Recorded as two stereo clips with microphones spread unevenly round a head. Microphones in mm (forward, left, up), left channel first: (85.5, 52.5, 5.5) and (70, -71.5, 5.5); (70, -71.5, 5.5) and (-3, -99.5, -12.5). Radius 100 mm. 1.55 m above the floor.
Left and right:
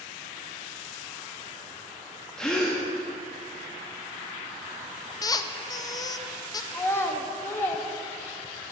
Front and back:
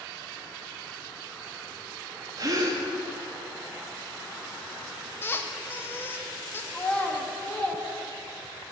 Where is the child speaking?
30° left, 1.0 m.